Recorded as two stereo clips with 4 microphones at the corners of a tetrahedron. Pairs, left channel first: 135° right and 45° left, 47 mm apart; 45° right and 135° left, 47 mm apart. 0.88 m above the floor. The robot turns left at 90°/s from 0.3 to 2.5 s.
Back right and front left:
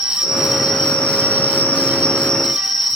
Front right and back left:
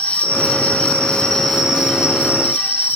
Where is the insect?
20° right, 0.9 m; by 3.0 s 140° left, 0.9 m.